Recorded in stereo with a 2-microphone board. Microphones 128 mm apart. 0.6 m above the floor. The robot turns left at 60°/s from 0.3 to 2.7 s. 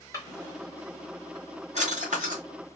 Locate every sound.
0.1 s a drawer: 25° left (ahead or behind), 1.3 m; by 2.4 s 75° right (ahead or behind), 1.3 m